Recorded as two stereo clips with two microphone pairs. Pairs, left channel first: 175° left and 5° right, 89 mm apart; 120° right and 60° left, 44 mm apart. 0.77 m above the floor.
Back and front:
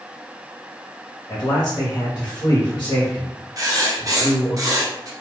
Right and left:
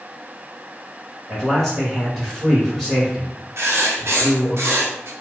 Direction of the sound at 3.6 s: 45° left.